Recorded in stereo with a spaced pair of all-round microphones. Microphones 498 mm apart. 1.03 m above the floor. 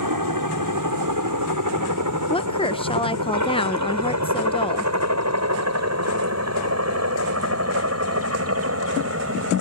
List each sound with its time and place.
0.0 s a helicopter: 40° right (ahead or behind); by 9.6 s 25° right (ahead or behind)
2.3 s a woman speaking: 10° left (ahead or behind)